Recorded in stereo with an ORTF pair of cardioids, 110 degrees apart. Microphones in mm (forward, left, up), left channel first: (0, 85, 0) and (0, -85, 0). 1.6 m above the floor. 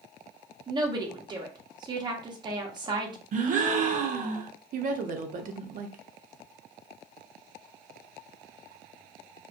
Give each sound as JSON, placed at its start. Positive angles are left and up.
{"t": 0.7, "sound": "a woman speaking", "azimuth_deg": -25, "distance_m": 0.8}
{"t": 3.3, "sound": "a gasp", "azimuth_deg": -50, "distance_m": 0.6}
{"t": 4.7, "sound": "a woman speaking", "azimuth_deg": -55, "distance_m": 0.6}